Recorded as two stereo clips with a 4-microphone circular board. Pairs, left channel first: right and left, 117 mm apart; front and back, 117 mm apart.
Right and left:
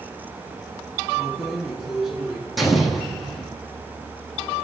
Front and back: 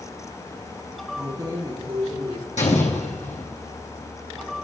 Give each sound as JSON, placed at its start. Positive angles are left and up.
{"t": 1.2, "sound": "keys jangling", "azimuth_deg": 180, "distance_m": 1.0}
{"t": 2.6, "sound": "an explosion", "azimuth_deg": 0, "distance_m": 1.8}